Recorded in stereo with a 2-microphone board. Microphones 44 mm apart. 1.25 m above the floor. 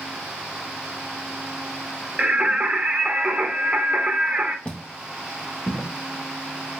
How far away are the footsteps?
About 1.8 m.